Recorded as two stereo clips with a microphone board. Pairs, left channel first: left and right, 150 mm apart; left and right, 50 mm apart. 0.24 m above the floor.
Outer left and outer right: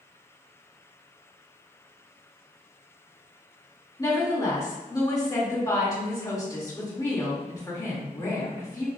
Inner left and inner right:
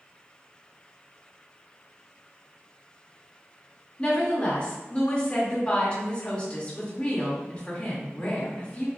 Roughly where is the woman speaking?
Left.